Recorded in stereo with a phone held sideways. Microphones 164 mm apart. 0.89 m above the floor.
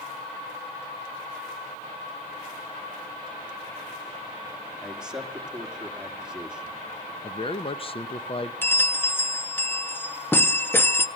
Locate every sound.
4.8 s a man speaking: 5° right (ahead or behind), 1.8 m
7.2 s a man speaking: 35° left (ahead or behind), 0.7 m
8.6 s a bell: 15° left (ahead or behind), 0.6 m